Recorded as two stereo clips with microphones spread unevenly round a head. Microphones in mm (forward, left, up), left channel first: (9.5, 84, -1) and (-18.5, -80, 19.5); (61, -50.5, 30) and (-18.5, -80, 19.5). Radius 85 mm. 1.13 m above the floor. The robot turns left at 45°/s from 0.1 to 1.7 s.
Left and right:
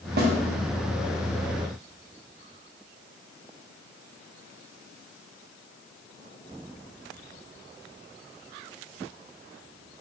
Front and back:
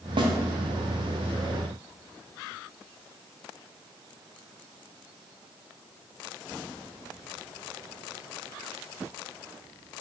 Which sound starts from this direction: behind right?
A snare drum, at 0.2 s.